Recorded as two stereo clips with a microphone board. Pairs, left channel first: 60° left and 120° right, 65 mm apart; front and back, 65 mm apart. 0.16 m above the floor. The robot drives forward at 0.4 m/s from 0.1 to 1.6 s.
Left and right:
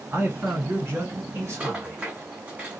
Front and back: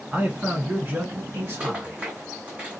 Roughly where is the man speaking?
Behind right.